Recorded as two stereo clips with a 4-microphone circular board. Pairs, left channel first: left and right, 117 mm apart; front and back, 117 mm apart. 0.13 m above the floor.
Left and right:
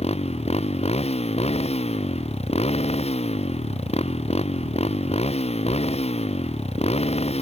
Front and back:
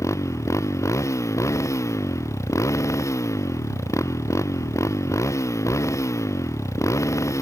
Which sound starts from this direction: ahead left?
A motorcycle, at 0.0 s.